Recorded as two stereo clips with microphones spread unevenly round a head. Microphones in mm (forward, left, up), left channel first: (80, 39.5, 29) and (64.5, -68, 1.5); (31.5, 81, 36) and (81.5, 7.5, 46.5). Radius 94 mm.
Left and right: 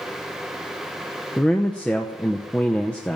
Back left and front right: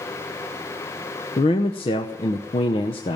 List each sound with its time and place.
1.4 s a man speaking: 145° left, 0.7 m